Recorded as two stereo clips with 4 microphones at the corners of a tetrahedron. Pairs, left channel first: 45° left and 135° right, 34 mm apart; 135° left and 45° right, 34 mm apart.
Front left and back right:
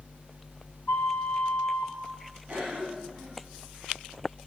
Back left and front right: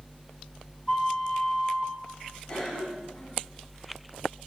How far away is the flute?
About 1.8 m.